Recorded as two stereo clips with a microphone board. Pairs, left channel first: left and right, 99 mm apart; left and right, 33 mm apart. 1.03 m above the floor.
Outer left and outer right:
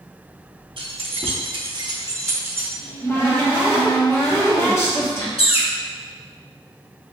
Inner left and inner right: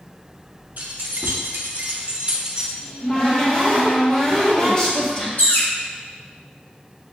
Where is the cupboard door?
30° left (ahead or behind), 0.9 m.